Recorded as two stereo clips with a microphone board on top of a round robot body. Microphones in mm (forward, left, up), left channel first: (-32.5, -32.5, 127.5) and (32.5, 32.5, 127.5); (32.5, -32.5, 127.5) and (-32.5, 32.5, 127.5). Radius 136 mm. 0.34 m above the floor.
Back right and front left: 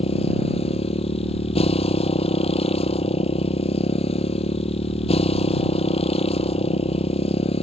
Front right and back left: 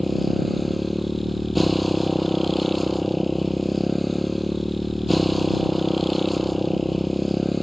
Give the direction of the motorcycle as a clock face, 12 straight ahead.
4 o'clock.